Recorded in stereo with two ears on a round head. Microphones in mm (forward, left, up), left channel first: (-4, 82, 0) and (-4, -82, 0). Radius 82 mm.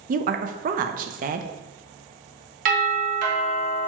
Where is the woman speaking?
45° right (ahead or behind), 0.5 m.